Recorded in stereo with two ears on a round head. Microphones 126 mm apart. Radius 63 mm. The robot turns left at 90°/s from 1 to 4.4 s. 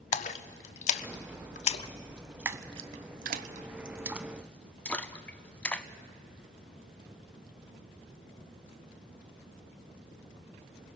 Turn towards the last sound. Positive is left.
turn(degrees=10)  # may be behind; listen again after turning